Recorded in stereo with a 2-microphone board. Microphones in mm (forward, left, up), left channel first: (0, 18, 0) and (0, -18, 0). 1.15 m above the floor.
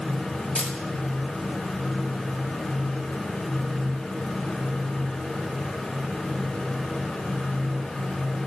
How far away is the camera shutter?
About 1.6 m.